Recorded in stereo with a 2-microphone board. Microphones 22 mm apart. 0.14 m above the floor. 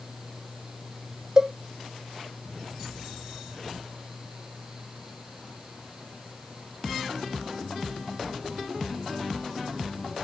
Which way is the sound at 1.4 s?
35° right (ahead or behind).